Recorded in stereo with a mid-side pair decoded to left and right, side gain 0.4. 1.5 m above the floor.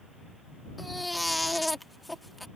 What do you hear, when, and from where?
0.8 s a baby crying: 10° left